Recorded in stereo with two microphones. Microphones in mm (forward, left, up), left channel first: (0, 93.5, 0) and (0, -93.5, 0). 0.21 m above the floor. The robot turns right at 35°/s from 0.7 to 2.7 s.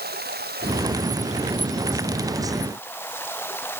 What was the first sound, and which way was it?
Running water, 60° right.